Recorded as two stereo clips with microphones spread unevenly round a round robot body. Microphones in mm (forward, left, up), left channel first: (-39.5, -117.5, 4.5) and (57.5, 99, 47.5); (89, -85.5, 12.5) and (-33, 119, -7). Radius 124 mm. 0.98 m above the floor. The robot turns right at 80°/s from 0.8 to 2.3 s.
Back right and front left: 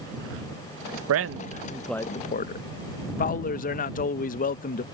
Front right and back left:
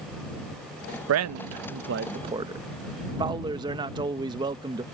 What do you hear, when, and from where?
1.1 s a man speaking: 95° left; by 4.8 s 165° right